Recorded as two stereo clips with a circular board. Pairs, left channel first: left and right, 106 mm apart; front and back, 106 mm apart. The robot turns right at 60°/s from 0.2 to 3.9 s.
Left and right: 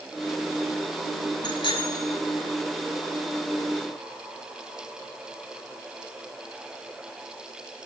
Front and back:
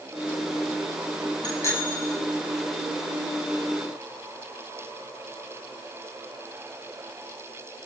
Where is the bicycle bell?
45° left, 8.5 m; by 2.2 s 95° left, 8.5 m.